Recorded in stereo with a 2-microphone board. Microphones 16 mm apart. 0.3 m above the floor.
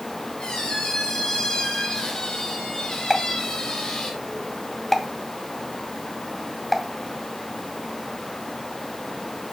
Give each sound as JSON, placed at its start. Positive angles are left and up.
{"t": 0.4, "sound": "a squeak", "side_deg": 75, "distance_m": 5.5}
{"t": 3.1, "sound": "a pop", "side_deg": 20, "distance_m": 2.5}